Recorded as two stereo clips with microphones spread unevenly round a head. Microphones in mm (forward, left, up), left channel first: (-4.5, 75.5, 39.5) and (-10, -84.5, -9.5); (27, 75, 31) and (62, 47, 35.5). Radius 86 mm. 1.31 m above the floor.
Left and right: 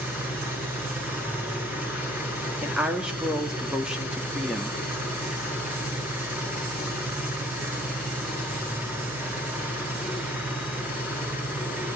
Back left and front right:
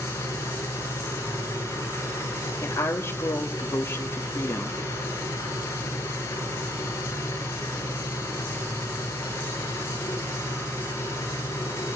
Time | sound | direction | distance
0.0 | an engine running | 175° right | 9 m
2.6 | a woman speaking | straight behind | 2.5 m